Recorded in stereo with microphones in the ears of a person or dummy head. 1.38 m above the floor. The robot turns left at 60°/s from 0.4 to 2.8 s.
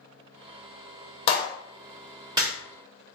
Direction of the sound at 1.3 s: 35° left (ahead or behind).